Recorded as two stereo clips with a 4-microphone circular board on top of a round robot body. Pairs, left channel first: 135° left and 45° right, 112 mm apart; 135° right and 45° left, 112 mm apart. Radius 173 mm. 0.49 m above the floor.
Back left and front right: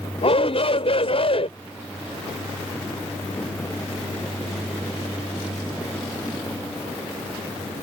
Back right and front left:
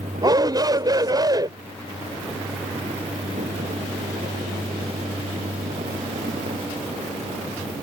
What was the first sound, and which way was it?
A shout, 100° left.